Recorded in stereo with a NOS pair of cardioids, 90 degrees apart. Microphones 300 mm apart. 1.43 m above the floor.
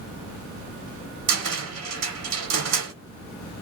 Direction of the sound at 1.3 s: 60° right.